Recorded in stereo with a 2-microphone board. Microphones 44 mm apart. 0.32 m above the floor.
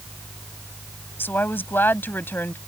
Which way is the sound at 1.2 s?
55° left (ahead or behind).